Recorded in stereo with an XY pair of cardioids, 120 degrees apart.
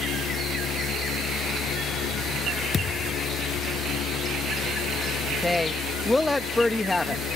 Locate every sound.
0.0 s a fan: 70° left
2.7 s a thud: 40° left
5.4 s a woman speaking: 20° left